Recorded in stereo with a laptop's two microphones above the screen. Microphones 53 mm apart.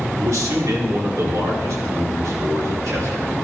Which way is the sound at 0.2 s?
85° right.